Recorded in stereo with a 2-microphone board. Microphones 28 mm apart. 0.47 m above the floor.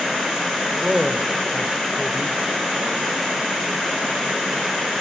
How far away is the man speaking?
About 1.6 m.